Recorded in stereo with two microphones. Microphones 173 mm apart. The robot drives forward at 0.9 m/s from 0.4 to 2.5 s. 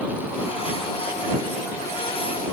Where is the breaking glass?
I don't hear breaking glass.